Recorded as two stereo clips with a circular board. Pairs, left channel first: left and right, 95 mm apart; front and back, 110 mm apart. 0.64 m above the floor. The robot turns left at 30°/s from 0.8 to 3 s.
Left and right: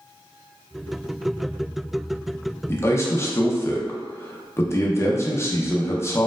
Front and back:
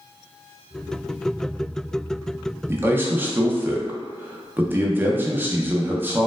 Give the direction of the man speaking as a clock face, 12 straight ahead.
8 o'clock.